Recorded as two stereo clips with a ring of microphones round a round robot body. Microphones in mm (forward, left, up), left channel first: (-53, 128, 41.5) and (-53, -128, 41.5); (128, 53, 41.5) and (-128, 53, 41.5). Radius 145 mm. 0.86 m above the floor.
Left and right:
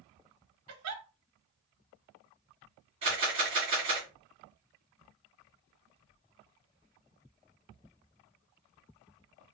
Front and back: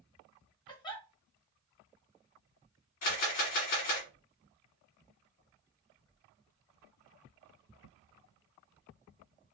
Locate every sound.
0.7 s a giggle: 70° right, 1.1 m
3.0 s a camera shutter: 20° right, 2 m